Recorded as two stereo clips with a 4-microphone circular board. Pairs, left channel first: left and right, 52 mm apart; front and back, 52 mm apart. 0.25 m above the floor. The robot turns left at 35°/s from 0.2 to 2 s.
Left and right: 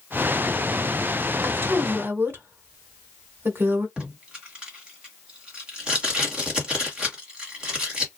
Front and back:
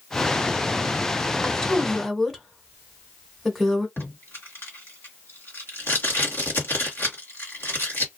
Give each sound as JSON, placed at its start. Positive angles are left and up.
{"t": 1.4, "sound": "a woman speaking", "azimuth_deg": -65, "distance_m": 1.4}
{"t": 4.0, "sound": "tape being pulled", "azimuth_deg": -25, "distance_m": 1.8}